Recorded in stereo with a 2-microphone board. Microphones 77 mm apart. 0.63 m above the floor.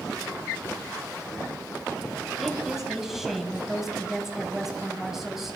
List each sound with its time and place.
2.4 s a woman speaking: 5° right (ahead or behind), 4 m